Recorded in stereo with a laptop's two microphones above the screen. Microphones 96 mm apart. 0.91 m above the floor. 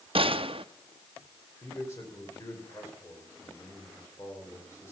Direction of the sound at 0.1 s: 65° right (ahead or behind).